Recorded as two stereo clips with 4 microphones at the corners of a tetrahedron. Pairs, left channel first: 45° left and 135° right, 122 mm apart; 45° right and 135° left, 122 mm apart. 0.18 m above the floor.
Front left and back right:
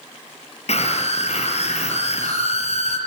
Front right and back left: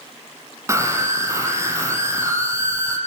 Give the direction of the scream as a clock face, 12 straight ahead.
10 o'clock.